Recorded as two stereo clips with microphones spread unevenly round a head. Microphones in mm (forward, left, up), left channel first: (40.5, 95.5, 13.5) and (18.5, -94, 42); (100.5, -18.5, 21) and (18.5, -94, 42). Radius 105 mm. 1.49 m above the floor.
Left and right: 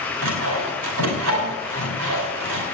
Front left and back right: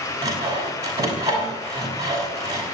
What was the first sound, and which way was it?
Sawing, 85° right.